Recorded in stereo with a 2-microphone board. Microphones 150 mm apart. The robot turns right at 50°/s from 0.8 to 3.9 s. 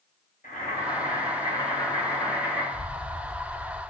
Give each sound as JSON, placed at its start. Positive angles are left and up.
{"t": 0.4, "sound": "boiling", "azimuth_deg": 110, "distance_m": 1.9}
{"t": 2.7, "sound": "an explosion", "azimuth_deg": -40, "distance_m": 0.8}